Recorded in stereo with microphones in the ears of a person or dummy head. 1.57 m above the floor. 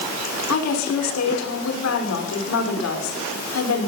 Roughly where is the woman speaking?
Left.